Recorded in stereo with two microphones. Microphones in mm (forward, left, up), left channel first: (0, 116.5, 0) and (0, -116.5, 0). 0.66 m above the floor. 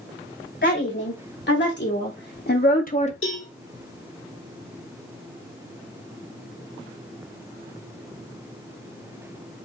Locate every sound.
0.6 s a woman speaking: 50° left (ahead or behind), 2.5 m; by 3.1 s 30° left (ahead or behind), 0.7 m
3.2 s a cowbell: 60° left (ahead or behind), 2 m